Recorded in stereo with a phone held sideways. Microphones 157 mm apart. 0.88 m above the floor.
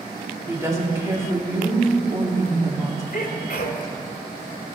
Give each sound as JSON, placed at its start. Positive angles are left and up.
{"t": 0.5, "sound": "a woman speaking", "side_deg": -20, "distance_m": 1.9}
{"t": 3.1, "sound": "a sneeze", "side_deg": 60, "distance_m": 2.0}